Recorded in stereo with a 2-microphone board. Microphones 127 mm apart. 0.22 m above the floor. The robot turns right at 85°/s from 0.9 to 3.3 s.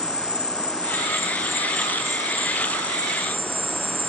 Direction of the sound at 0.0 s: 105° left.